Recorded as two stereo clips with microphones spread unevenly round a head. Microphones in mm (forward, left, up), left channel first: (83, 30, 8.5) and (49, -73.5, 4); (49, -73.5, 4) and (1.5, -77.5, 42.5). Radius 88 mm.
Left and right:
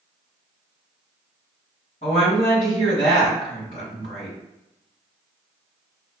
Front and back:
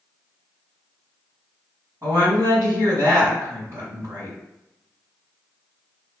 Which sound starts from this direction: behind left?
A woman speaking, at 2.0 s.